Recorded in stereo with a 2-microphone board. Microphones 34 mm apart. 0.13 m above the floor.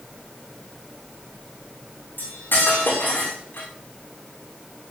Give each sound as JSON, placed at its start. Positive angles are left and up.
{"t": 2.2, "sound": "cutlery clinking", "side_deg": 80, "distance_m": 6.5}